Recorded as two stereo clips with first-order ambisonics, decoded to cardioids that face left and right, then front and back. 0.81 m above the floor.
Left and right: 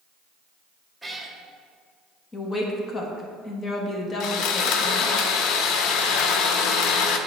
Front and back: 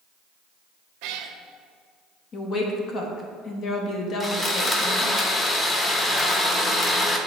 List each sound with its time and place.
1.0 s a cat meowing: 175° right, 0.6 m
2.3 s a woman speaking: 30° left, 0.8 m
4.2 s sawing: 70° left, 0.6 m